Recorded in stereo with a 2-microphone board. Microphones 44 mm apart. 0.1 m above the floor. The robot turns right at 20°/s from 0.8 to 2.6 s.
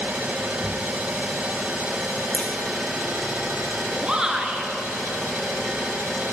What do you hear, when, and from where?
0.0 s an engine running: 40° right, 1.5 m; by 6.3 s 5° right, 1.5 m
2.3 s a crack: 25° left (ahead or behind), 2.5 m; by 2.5 s 30° left (ahead or behind), 2.5 m
4.0 s a shout: 20° right (ahead or behind), 1.3 m